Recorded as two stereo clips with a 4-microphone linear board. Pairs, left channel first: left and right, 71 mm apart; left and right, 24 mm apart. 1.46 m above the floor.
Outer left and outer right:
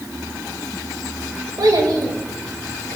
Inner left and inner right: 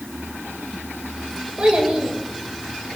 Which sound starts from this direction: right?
A child speaking, at 1.6 s.